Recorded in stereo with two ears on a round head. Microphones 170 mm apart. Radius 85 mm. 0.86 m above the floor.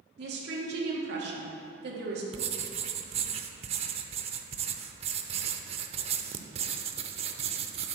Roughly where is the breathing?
I don't hear breathing.